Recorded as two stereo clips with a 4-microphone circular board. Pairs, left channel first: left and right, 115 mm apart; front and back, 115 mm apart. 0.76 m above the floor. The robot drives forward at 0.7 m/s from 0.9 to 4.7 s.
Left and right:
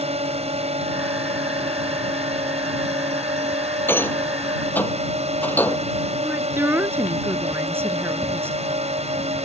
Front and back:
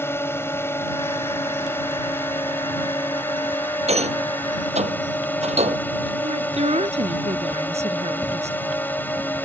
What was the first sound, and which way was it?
A drone, 70° right.